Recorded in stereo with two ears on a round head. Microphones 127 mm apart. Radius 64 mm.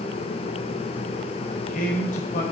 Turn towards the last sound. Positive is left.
turn(degrees=60)  # may be behind; listen again after turning